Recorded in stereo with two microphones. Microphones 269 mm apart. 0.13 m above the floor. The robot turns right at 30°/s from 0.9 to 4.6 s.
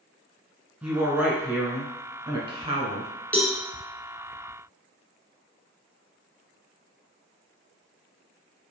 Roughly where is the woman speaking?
Centre.